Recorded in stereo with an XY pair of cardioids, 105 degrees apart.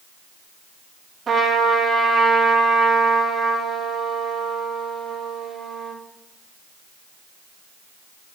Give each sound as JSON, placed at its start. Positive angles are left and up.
{"t": 1.3, "sound": "a trumpet", "azimuth_deg": -40, "distance_m": 3.0}